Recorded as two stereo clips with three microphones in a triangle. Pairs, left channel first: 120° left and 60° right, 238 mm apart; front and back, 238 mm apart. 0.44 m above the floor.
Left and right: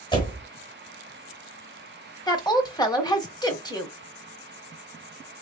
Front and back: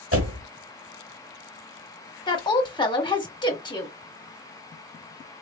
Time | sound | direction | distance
0.1 | a door slam | 170° right | 1.2 m
2.3 | a woman speaking | 55° left | 1.0 m